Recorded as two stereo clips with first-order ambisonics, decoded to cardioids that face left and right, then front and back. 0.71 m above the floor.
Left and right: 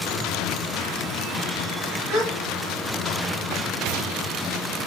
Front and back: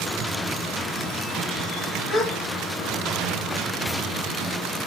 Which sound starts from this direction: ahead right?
A gasp, at 2.1 s.